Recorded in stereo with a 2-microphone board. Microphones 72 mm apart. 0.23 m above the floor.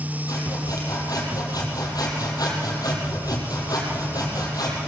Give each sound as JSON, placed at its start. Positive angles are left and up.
{"t": 0.3, "sound": "sawing", "side_deg": 55, "distance_m": 6.5}